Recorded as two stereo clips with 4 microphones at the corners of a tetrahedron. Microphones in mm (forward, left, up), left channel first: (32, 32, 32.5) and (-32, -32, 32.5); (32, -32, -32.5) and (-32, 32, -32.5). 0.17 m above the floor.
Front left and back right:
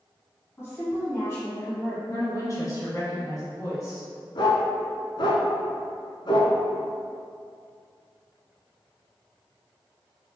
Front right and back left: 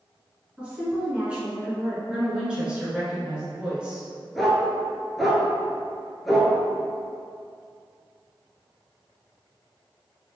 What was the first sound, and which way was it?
A woman speaking, 70° left.